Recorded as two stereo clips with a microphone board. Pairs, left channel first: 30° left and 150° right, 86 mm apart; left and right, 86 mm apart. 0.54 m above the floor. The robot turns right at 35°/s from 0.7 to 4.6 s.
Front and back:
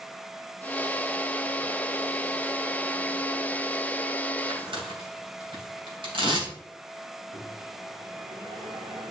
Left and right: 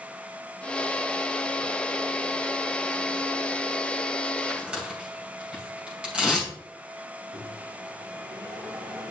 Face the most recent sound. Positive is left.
turn(degrees=-130)